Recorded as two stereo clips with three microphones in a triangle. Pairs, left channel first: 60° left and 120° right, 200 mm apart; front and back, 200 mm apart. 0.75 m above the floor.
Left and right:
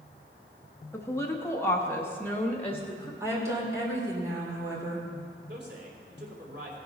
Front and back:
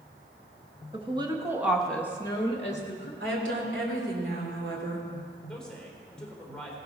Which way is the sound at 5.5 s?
85° right.